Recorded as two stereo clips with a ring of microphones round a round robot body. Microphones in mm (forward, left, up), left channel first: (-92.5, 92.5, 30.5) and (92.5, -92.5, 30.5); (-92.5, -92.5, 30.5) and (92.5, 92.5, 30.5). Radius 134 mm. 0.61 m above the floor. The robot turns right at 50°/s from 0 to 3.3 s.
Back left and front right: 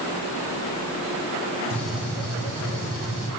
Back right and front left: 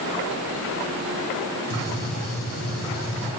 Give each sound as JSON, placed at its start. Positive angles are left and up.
{"t": 1.7, "sound": "a gunshot", "azimuth_deg": -145, "distance_m": 1.9}